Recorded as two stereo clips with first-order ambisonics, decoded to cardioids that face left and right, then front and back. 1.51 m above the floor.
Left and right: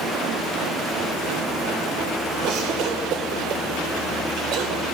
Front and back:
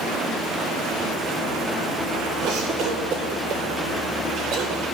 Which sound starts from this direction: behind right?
A cough, at 2.4 s.